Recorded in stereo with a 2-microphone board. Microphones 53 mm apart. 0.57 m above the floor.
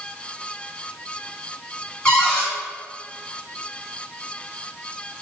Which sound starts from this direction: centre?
A cupboard door, at 2.0 s.